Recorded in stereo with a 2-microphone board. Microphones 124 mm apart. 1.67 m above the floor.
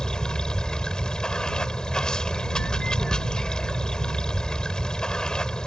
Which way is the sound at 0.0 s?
5° left (ahead or behind).